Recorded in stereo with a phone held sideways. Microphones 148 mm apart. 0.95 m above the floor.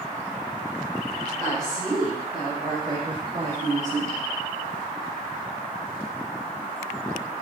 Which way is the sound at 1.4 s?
10° left (ahead or behind).